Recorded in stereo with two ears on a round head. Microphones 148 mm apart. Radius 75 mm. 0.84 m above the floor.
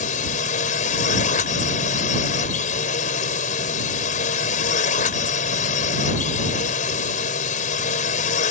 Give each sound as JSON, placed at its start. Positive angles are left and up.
{"t": 0.0, "sound": "a drone", "side_deg": 50}